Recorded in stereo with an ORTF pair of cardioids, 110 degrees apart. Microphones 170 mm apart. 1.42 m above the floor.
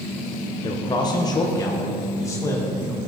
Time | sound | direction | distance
0.6 | a man speaking | 30° left | 1.0 m